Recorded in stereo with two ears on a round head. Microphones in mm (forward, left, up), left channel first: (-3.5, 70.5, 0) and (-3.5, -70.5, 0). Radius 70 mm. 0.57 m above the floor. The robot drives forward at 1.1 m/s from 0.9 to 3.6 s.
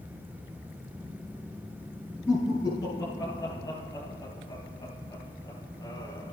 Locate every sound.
2.3 s laughter: 20° left (ahead or behind), 5 m; by 6.3 s 30° left (ahead or behind), 3.5 m